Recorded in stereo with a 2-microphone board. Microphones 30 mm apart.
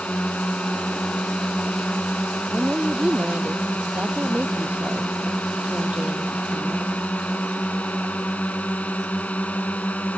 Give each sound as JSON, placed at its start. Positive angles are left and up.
{"t": 0.0, "sound": "a drone", "side_deg": 65}
{"t": 2.5, "sound": "a woman speaking", "side_deg": -60}